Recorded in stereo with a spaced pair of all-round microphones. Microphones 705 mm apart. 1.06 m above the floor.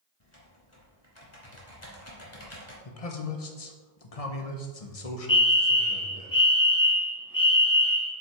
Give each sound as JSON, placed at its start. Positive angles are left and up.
{"t": 0.2, "sound": "typing on a keyboard", "side_deg": 45, "distance_m": 2.0}
{"t": 2.9, "sound": "a man speaking", "side_deg": 55, "distance_m": 1.1}
{"t": 5.3, "sound": "a fire alarm", "side_deg": 30, "distance_m": 1.3}